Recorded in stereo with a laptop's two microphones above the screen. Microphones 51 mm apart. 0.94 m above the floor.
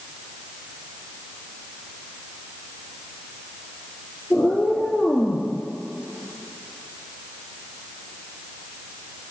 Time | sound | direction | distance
4.3 | a cat meowing | 10° left (ahead or behind) | 3 m